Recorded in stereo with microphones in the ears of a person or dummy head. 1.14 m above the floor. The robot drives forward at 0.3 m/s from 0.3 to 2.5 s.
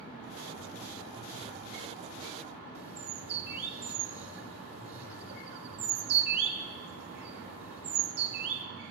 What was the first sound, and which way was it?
A bird, 50° right (ahead or behind).